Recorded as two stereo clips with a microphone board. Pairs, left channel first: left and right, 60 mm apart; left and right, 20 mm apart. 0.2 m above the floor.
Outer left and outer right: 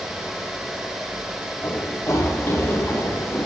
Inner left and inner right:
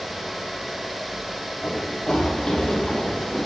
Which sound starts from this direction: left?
Running footsteps, at 1.6 s.